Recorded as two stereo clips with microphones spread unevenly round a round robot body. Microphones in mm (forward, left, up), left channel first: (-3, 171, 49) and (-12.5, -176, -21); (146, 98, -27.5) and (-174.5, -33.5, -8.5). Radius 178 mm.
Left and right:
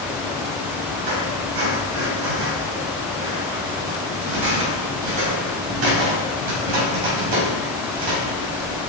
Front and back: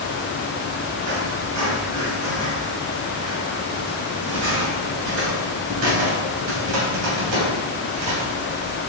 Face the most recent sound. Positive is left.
turn(degrees=-115)